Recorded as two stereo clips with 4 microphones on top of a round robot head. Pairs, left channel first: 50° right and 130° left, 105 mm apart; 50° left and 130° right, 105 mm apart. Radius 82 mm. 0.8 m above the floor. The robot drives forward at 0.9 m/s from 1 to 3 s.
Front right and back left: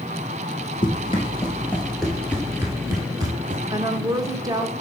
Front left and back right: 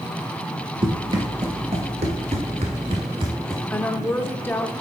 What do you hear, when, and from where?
0.8 s running footsteps: 95° right, 1.1 m; by 3.6 s 175° left, 0.9 m
3.7 s a woman speaking: 105° left, 0.7 m